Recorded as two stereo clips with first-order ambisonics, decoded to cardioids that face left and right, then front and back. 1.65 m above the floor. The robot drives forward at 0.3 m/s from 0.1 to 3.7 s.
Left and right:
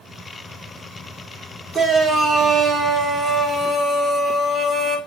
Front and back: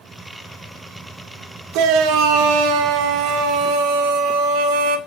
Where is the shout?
155° right, 2.5 m; by 5.0 s 160° right, 3 m.